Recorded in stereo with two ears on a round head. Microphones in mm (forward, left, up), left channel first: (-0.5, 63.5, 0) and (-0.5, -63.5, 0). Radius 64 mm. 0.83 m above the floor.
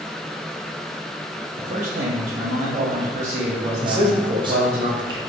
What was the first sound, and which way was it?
A man speaking, 55° right (ahead or behind).